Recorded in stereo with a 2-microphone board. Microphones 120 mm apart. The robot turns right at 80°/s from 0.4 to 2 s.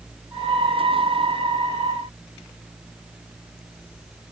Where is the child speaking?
I don't hear a child speaking.